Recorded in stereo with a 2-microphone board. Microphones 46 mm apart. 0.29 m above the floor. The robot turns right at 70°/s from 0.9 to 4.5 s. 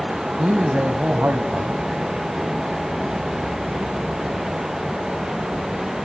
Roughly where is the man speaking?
Behind right.